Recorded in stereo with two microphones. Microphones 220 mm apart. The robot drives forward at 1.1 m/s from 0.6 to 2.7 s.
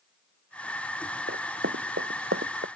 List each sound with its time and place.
1.3 s running footsteps: 70° right (ahead or behind); by 2.7 s 65° right (ahead or behind)